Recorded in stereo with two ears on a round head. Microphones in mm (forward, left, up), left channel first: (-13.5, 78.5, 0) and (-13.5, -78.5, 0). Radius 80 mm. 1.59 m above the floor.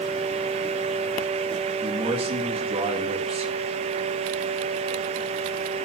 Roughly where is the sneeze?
I don't hear a sneeze.